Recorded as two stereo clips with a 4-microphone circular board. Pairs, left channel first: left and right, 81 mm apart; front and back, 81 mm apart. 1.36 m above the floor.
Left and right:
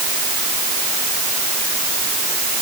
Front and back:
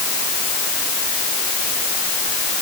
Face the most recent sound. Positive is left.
No sound to turn to.